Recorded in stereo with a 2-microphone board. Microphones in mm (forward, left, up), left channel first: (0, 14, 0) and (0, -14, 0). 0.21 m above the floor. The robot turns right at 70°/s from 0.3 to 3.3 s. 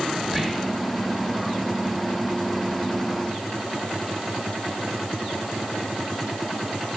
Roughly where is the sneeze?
I don't hear a sneeze.